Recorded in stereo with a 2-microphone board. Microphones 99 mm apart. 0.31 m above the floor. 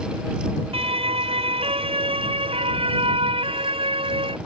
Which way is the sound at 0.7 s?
80° right.